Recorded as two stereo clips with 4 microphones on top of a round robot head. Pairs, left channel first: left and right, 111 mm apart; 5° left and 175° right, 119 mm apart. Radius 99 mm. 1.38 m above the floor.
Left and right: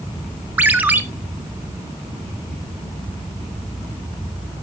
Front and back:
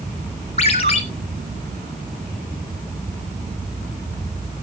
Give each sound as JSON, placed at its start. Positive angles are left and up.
{"t": 0.6, "sound": "a ringtone", "azimuth_deg": -25, "distance_m": 0.7}